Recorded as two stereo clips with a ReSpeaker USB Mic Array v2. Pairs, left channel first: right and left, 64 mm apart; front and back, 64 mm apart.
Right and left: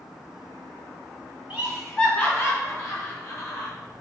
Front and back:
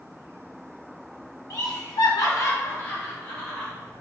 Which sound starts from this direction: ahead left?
Laughter, at 1.5 s.